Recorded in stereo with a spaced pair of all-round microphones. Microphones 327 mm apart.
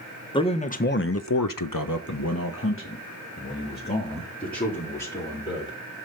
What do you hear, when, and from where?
0.3 s a man speaking: 15° left (ahead or behind), 1.0 m; by 5.8 s 20° left (ahead or behind), 3.5 m